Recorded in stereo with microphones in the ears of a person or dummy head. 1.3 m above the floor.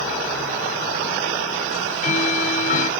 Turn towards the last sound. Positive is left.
turn(degrees=40)  # may be behind; listen again after turning